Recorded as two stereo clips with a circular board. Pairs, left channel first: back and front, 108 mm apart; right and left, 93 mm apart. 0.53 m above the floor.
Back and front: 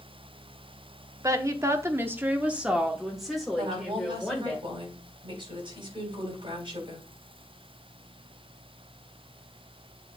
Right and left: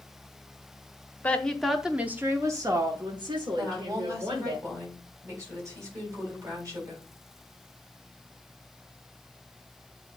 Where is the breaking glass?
No breaking glass in this recording.